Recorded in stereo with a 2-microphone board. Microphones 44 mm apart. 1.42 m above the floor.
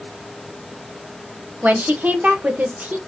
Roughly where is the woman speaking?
Right.